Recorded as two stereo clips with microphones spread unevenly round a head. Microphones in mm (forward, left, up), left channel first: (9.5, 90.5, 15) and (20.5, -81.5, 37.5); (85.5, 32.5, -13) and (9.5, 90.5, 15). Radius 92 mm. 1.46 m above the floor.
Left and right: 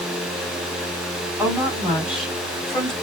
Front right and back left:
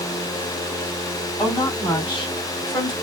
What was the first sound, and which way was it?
A woman speaking, 5° right.